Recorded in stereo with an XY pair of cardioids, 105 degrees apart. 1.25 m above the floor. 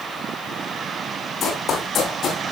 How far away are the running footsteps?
About 5 m.